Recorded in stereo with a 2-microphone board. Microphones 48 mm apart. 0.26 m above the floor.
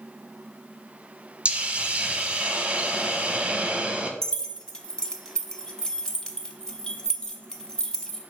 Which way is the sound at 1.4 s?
25° right (ahead or behind).